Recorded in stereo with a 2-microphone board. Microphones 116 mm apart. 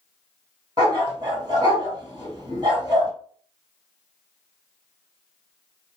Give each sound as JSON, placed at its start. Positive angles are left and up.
{"t": 0.8, "sound": "a dog barking", "side_deg": -35, "distance_m": 1.5}